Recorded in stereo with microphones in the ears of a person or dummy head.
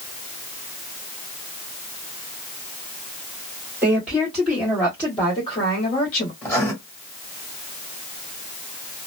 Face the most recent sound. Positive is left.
turn(degrees=10)  # may be behind; listen again after turning